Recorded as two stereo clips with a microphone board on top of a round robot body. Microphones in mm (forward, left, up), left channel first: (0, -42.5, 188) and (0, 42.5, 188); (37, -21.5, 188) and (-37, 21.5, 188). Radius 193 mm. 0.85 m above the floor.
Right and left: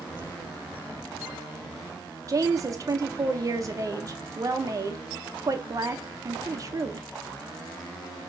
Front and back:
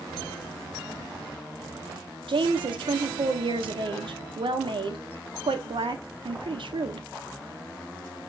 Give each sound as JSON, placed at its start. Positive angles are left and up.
{"t": 2.3, "sound": "a woman speaking", "azimuth_deg": 140, "distance_m": 0.8}